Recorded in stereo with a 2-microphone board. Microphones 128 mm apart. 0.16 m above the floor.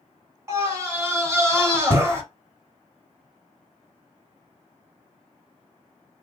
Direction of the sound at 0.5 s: 20° right (ahead or behind).